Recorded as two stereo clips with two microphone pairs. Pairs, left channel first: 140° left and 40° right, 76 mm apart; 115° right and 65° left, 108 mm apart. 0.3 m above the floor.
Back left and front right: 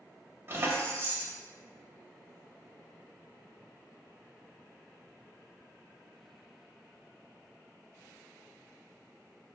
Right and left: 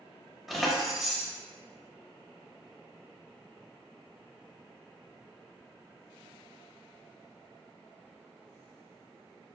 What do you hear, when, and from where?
0.5 s keys jangling: 30° right, 0.6 m